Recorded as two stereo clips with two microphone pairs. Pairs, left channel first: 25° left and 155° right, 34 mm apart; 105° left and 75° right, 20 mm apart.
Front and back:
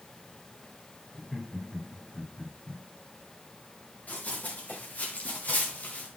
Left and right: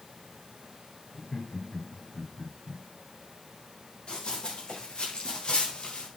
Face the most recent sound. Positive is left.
turn(degrees=65)